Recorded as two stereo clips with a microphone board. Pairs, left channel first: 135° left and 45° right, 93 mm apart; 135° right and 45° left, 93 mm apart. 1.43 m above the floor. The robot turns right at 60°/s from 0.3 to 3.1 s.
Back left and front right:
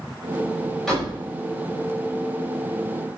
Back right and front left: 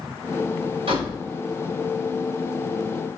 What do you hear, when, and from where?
0.9 s a door slam: 50° left, 5 m; by 1.2 s 70° left, 5 m